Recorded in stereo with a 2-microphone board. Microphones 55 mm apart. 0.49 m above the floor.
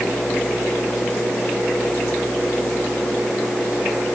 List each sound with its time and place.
Only background noise.